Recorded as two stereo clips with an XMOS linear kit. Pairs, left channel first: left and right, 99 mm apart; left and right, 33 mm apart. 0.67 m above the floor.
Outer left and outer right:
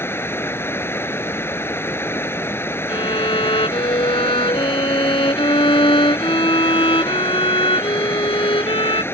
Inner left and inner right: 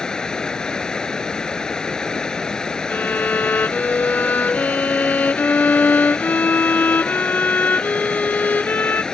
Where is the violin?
60° left (ahead or behind).